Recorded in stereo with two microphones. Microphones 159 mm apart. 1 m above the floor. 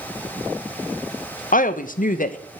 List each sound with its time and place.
1.5 s a woman speaking: 60° left (ahead or behind), 0.6 m